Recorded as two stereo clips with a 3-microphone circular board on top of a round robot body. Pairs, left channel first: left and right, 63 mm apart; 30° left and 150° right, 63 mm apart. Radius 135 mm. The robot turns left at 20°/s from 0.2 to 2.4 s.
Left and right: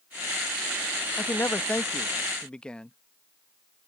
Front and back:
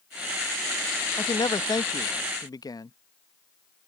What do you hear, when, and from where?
1.2 s a man speaking: 40° left; by 3.0 s 15° left